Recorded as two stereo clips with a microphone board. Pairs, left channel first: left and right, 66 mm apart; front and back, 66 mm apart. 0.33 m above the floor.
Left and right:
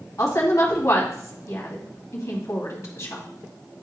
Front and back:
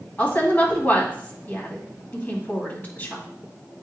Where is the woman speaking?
55° left, 2 m.